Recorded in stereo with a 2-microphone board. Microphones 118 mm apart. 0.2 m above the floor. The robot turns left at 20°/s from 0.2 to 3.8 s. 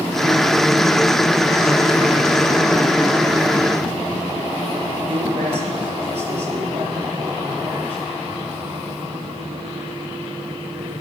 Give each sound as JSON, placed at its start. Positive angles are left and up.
{"t": 5.1, "sound": "a man speaking", "side_deg": -60, "distance_m": 5.5}